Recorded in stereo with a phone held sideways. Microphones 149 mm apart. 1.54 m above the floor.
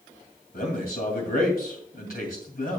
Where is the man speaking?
75° left (ahead or behind), 2.5 m.